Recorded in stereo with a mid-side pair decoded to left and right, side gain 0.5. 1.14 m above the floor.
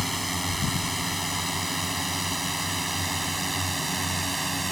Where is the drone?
Straight ahead; by 4.7 s 10° right.